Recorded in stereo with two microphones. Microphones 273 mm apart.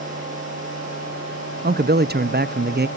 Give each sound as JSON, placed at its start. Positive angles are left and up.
{"t": 1.6, "sound": "a man speaking", "side_deg": -35, "distance_m": 0.6}